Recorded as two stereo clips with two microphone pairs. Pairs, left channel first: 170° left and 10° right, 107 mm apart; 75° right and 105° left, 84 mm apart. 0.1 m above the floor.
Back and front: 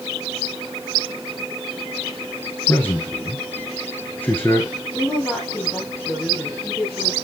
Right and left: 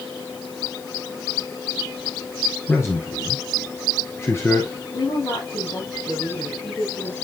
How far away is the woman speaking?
About 4.5 m.